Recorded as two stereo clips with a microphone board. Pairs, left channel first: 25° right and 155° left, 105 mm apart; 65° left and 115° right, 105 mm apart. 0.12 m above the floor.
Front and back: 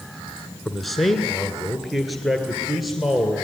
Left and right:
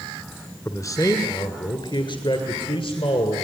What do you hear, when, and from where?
0.7 s a man speaking: 65° left, 1.4 m; by 3.5 s 70° left, 2.5 m